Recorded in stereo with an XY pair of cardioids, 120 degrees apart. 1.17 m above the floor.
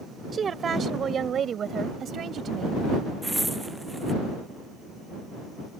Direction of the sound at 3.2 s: 5° right.